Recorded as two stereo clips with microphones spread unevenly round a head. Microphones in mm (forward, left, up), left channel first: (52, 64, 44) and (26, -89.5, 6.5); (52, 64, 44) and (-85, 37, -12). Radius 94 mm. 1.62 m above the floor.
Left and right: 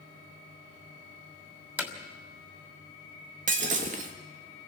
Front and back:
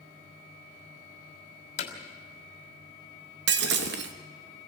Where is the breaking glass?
155° right, 1.2 m.